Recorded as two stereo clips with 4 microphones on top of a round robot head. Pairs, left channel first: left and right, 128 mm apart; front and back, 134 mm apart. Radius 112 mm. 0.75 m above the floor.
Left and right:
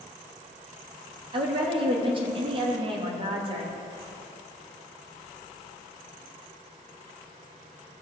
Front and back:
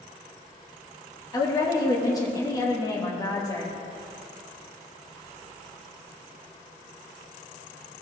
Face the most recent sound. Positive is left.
turn(degrees=-55)